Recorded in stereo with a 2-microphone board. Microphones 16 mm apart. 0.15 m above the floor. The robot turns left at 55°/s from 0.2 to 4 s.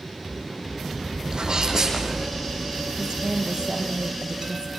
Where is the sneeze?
105° right, 5.5 m; by 2.3 s 160° right, 5.5 m.